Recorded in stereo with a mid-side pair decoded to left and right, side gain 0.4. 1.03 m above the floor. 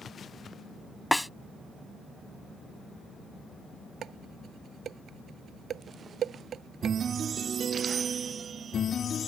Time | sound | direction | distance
1.1 | a snare drum | 5° left | ?
4.0 | dishes clattering | 65° right | ?